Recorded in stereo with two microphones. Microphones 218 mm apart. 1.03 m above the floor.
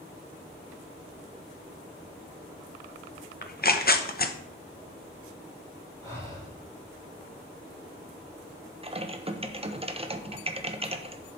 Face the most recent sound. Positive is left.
turn(degrees=-25)  # may be behind; listen again after turning